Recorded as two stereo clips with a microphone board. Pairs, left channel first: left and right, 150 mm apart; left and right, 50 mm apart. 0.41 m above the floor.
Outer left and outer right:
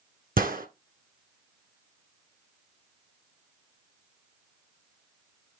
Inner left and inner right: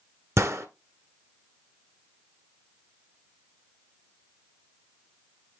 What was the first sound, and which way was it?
A gunshot, 75° right (ahead or behind).